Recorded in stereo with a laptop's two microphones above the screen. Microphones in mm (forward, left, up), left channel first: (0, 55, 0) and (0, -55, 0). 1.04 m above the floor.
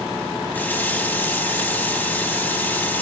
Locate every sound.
0.5 s a running tap: 15° left (ahead or behind), 0.8 m